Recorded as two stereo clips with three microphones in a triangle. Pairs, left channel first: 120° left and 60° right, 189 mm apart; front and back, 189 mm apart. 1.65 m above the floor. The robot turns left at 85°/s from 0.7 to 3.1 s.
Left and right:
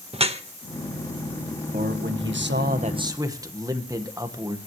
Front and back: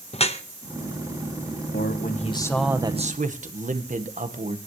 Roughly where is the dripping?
Ahead right.